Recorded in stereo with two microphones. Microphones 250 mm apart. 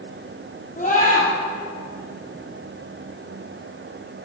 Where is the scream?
30° left (ahead or behind), 3.5 m.